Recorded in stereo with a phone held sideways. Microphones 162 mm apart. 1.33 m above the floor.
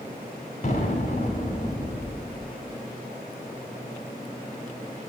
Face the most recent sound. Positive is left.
turn(degrees=50)  # may be behind; listen again after turning